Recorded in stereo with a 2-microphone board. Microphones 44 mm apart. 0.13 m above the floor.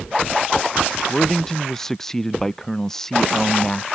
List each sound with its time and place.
1.1 s a man speaking: 10° left (ahead or behind)